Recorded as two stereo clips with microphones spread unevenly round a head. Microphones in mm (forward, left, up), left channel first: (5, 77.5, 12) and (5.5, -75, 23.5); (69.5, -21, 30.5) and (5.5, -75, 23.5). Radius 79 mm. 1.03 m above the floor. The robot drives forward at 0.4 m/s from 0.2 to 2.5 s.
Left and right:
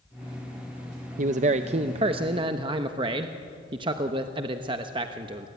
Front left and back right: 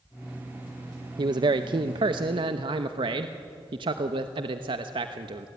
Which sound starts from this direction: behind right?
A man speaking, at 1.2 s.